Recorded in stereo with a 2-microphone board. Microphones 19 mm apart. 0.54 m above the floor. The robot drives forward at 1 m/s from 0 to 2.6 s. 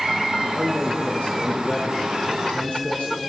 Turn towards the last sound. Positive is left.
turn(degrees=70)  # may be behind; listen again after turning